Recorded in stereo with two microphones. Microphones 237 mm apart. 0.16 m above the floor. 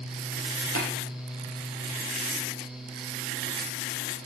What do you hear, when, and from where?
0.8 s tapping: 70° left (ahead or behind), 4 m